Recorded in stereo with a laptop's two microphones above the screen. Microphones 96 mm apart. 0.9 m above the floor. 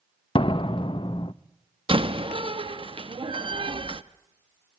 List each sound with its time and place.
0.3 s a door slam: 60° left (ahead or behind), 0.5 m
1.9 s a door slam: 65° right (ahead or behind), 0.7 m